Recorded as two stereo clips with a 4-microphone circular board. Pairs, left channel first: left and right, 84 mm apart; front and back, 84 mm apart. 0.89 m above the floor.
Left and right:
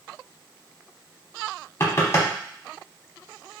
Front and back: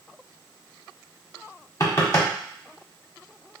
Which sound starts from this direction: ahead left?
Knocking, at 1.8 s.